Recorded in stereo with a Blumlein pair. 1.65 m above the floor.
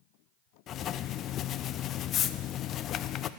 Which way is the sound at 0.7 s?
30° left.